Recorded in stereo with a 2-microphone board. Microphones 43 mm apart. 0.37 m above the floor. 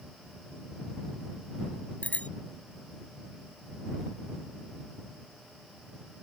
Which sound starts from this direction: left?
A bicycle bell, at 2.0 s.